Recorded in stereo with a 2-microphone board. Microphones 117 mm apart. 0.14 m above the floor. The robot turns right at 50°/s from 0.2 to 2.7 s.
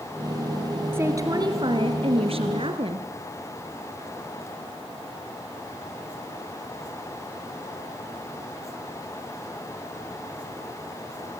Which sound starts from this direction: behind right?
A woman speaking, at 0.9 s.